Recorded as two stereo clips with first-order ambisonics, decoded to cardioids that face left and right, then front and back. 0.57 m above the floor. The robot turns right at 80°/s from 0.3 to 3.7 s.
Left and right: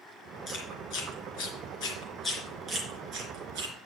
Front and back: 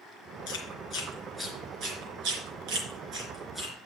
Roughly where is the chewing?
Ahead left.